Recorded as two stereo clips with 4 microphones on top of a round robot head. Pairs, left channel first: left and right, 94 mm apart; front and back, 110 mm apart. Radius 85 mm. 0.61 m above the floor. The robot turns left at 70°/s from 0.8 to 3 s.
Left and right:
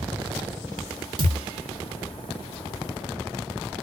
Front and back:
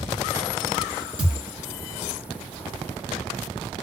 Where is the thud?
125° right, 1.3 m; by 1.5 s 145° right, 1.3 m.